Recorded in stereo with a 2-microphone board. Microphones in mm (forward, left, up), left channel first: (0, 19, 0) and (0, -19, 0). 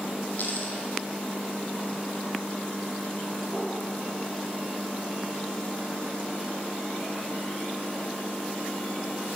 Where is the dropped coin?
55° left (ahead or behind), 1.8 m.